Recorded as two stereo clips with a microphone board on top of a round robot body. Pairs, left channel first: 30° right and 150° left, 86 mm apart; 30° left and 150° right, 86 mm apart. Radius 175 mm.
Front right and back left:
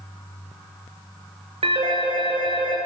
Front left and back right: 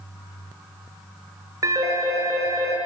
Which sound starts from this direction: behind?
A phone ringing, at 1.6 s.